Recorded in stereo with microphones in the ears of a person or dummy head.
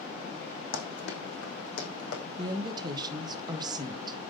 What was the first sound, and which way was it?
Running footsteps, 70° left (ahead or behind).